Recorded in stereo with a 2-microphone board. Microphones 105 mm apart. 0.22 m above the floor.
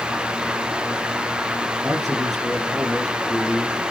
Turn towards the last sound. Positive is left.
turn(degrees=0)  # may be behind; listen again after turning